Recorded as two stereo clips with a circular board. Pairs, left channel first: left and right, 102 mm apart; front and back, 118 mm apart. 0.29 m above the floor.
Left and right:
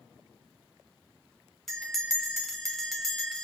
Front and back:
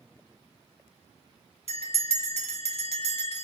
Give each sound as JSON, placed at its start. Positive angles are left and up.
{"t": 1.7, "sound": "a bell", "azimuth_deg": 0, "distance_m": 1.2}